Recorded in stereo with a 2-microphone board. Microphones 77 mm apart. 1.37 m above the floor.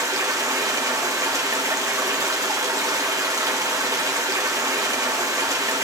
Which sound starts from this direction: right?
Running water, at 0.0 s.